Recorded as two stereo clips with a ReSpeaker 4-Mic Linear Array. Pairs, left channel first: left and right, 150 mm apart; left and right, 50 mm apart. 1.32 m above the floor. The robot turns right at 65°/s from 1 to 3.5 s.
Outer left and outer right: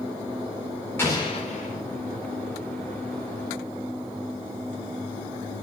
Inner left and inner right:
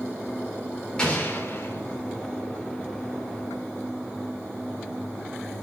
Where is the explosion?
15° left, 3.5 m; by 1.8 s 70° left, 3.5 m.